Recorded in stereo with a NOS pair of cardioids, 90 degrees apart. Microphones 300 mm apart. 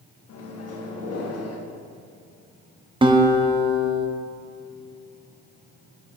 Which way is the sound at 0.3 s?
55° left.